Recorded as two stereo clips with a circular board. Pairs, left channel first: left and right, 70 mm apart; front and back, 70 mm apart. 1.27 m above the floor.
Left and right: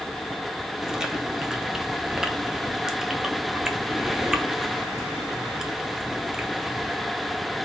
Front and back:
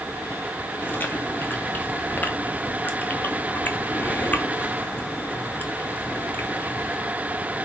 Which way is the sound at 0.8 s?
15° right.